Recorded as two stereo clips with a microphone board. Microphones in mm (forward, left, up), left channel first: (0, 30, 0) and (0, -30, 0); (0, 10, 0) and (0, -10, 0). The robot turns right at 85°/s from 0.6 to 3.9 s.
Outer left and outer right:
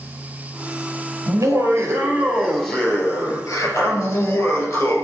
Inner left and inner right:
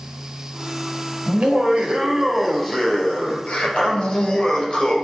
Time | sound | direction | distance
1.3 | laughter | 110° right | 3 m